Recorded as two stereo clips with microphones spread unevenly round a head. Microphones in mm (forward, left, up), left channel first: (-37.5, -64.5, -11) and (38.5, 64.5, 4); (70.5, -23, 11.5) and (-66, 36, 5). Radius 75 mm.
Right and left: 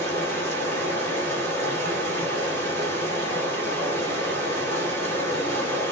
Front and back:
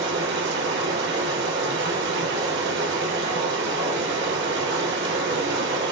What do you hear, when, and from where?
0.0 s running water: 165° left, 1.6 m